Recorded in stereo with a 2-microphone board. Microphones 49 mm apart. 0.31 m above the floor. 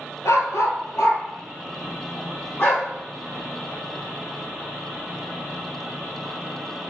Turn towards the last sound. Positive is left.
turn(degrees=45)  # may be behind; listen again after turning